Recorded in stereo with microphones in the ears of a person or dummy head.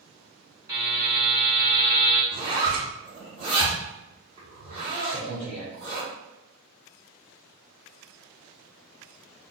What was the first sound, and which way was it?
A buzzer, 10° right (ahead or behind).